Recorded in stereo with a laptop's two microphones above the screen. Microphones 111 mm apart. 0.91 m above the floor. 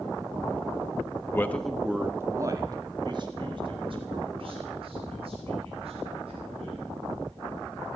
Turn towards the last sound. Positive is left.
turn(degrees=-60)  # may be behind; listen again after turning